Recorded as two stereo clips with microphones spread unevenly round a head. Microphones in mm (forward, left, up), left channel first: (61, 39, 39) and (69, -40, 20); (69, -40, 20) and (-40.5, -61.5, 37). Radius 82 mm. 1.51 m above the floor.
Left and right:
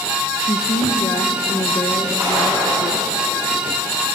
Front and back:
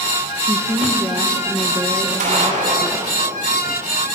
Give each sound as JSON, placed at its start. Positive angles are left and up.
{"t": 0.4, "sound": "a woman speaking", "azimuth_deg": 120, "distance_m": 1.3}
{"t": 2.2, "sound": "a gunshot", "azimuth_deg": -165, "distance_m": 9.5}